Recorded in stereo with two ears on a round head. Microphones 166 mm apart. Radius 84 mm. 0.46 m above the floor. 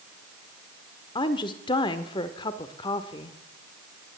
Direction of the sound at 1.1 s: 25° left (ahead or behind).